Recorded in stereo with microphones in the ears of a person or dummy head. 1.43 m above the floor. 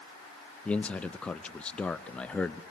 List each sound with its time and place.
0.7 s a man speaking: 5° left (ahead or behind), 0.5 m